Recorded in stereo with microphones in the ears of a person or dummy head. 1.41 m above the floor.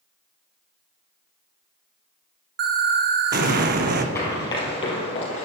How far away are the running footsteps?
About 1.8 m.